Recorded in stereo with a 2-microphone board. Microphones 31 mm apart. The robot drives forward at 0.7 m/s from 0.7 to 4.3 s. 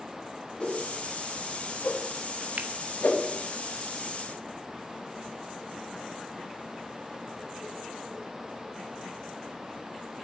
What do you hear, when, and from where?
0.6 s a whoosh: 30° left (ahead or behind), 3 m; by 3.2 s 60° left (ahead or behind), 1.6 m
2.6 s a finger snap: 55° right (ahead or behind), 0.9 m; by 2.7 s 50° right (ahead or behind), 1.0 m